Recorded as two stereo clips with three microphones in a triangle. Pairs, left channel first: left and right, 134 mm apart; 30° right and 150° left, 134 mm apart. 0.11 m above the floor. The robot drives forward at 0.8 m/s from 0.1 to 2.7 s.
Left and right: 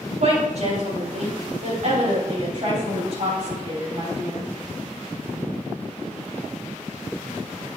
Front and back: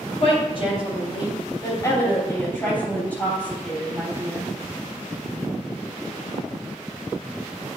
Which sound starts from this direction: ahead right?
A woman speaking, at 0.2 s.